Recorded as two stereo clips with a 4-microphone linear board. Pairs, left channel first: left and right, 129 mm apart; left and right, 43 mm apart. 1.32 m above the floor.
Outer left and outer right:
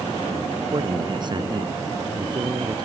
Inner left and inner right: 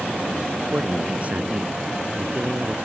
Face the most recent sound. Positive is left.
turn(degrees=-35)  # may be behind; listen again after turning